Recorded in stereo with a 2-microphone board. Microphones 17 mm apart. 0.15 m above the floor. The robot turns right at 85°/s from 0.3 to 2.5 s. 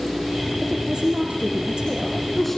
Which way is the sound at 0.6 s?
155° right.